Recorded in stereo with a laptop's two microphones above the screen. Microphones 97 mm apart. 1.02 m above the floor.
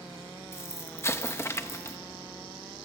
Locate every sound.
0.5 s an explosion: 25° left (ahead or behind), 0.7 m